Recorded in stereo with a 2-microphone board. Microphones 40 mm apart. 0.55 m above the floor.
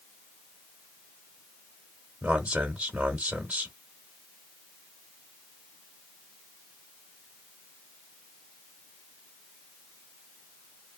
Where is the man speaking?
20° right (ahead or behind), 1.2 m.